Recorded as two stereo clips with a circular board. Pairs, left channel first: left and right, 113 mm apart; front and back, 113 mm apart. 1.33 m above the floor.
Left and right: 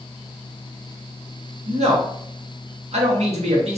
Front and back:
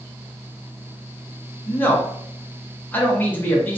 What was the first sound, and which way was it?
A man speaking, 75° right.